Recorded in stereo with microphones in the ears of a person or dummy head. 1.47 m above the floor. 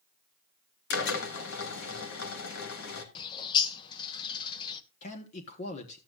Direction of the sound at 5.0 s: 45° left (ahead or behind).